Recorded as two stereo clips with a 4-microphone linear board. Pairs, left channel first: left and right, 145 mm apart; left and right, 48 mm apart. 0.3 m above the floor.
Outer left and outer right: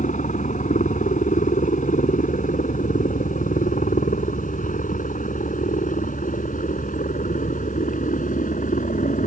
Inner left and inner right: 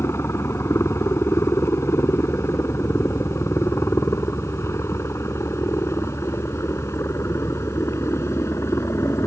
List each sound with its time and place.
0.0 s a helicopter: 60° left (ahead or behind); by 9.3 s 65° left (ahead or behind)